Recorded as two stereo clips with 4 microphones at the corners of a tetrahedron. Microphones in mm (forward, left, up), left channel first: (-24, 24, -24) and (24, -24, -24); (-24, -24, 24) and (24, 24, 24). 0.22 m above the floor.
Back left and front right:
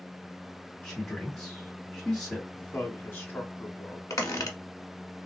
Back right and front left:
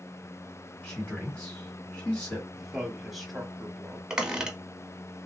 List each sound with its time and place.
0.8 s a man speaking: 165° right, 1.5 m
2.5 s a man speaking: 135° left, 1.2 m
4.1 s a squeak: 120° left, 0.9 m